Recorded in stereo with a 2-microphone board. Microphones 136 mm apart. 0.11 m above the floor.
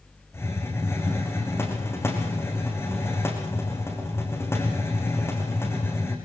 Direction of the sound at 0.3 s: 20° left (ahead or behind).